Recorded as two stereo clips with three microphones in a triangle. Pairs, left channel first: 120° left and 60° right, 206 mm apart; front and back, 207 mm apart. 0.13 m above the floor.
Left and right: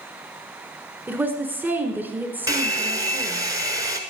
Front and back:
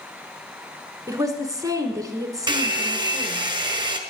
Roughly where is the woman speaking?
Behind right.